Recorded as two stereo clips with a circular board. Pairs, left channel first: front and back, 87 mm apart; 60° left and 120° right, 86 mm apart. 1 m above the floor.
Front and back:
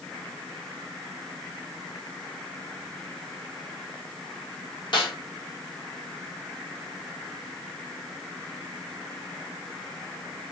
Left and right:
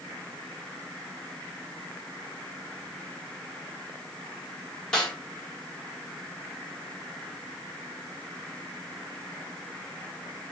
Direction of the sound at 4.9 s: 20° right.